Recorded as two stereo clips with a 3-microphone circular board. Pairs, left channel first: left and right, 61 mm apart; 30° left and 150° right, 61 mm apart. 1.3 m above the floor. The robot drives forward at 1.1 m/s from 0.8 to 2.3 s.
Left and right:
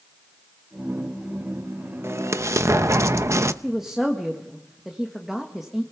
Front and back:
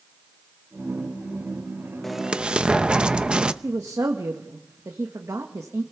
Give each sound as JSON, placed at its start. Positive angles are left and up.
{"t": 2.0, "sound": "an explosion", "azimuth_deg": -60, "distance_m": 0.8}
{"t": 3.6, "sound": "a woman speaking", "azimuth_deg": -175, "distance_m": 1.6}